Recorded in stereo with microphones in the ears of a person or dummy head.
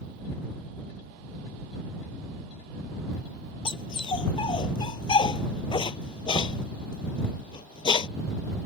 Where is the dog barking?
25° left (ahead or behind).